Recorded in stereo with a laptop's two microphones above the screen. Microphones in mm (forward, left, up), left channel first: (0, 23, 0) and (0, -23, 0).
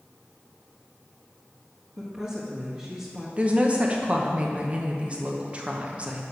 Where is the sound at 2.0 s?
25° right (ahead or behind), 1.6 m.